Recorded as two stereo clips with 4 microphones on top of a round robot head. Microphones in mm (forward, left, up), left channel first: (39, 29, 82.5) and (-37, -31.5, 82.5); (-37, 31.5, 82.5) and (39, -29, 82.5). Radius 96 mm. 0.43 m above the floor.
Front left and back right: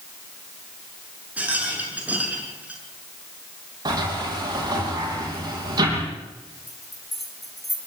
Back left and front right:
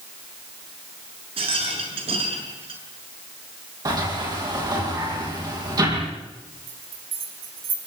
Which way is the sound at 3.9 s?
90° right.